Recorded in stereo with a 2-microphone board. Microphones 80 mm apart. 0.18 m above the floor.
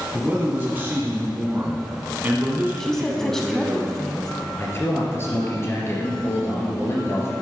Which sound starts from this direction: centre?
A woman speaking, at 2.8 s.